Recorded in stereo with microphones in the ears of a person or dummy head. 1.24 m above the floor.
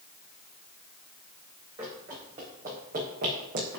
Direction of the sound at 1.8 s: 20° right (ahead or behind).